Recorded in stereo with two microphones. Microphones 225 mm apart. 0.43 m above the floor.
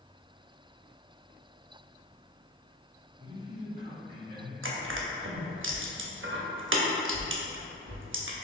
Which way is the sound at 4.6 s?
60° right (ahead or behind).